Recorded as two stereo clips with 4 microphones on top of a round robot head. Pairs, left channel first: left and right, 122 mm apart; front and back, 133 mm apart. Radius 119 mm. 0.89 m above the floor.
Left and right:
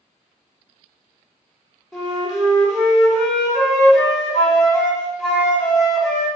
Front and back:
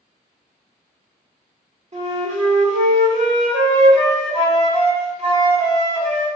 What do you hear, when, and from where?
1.9 s a flute: 175° right, 1.5 m